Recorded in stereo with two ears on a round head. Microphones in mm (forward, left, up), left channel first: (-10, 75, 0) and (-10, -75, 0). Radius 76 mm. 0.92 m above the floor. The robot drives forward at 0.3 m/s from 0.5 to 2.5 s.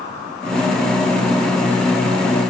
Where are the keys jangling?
I don't hear keys jangling.